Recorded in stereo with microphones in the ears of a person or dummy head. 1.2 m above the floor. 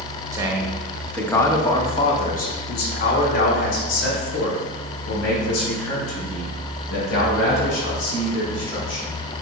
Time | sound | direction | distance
0.3 | a man speaking | 15° right (ahead or behind) | 1.2 m